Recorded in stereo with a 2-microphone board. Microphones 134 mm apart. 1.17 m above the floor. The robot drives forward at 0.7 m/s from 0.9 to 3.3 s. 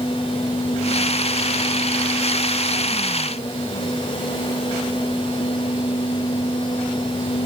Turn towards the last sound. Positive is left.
No sound to turn to.